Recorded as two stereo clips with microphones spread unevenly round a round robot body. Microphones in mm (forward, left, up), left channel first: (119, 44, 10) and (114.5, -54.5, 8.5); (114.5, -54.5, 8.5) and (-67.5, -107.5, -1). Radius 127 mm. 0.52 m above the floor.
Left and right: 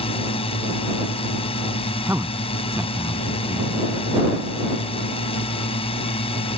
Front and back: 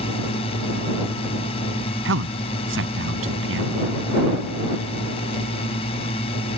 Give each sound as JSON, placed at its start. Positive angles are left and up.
{"t": 0.0, "sound": "a drone", "azimuth_deg": 85}
{"t": 2.0, "sound": "a man speaking", "azimuth_deg": -170}